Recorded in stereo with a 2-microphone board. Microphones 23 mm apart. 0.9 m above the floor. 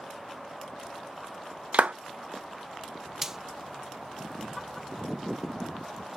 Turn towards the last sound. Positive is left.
turn(degrees=-15)  # may be behind; listen again after turning